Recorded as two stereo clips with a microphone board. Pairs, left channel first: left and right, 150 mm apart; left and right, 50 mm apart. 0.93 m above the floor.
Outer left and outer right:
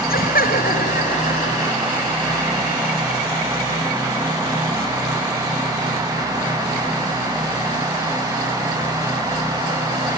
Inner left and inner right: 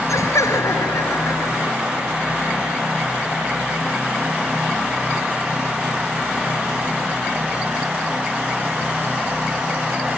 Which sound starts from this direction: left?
Laughter, at 0.1 s.